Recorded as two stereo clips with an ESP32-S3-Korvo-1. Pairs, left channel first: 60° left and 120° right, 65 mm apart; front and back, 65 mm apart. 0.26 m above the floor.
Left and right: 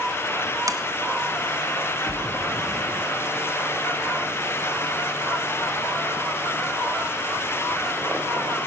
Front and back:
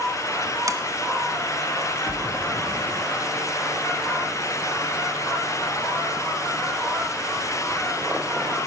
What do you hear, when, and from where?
0.7 s a sliding door: 150° right, 1.3 m
2.1 s a splash: 30° left, 1.2 m